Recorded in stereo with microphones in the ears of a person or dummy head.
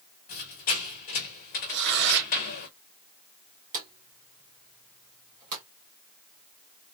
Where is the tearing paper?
60° right (ahead or behind), 0.9 m.